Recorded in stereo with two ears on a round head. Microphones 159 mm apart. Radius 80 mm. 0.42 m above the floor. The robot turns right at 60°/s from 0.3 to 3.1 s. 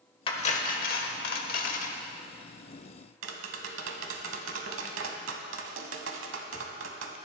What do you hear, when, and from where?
0.3 s cutlery clinking: 35° left, 0.9 m; by 2.0 s 135° left, 0.9 m
3.2 s tapping: 80° right, 1.0 m